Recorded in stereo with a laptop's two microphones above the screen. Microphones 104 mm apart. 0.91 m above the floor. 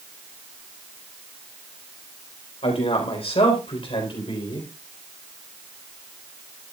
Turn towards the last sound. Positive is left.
turn(degrees=50)  # may be behind; listen again after turning